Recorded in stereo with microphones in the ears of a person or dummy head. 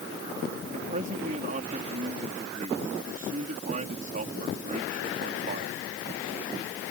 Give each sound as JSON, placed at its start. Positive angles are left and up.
{"t": 0.7, "sound": "a man speaking", "side_deg": -45}